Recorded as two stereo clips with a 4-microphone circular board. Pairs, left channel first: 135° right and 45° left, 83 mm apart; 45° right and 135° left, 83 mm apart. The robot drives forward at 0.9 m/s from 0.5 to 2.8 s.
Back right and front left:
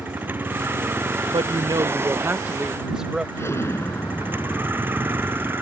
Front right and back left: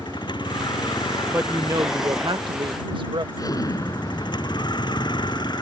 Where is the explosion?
80° right.